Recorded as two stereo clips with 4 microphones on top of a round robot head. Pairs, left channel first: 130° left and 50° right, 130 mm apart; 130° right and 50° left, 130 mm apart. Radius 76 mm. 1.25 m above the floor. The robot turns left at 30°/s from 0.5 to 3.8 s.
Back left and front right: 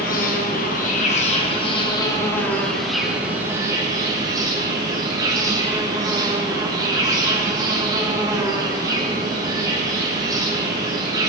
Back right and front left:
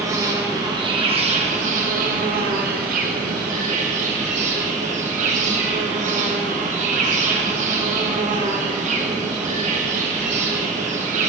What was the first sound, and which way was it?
An insect, 115° left.